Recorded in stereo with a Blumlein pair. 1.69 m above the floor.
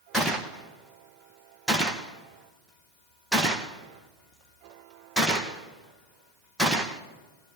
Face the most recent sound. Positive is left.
turn(degrees=-5)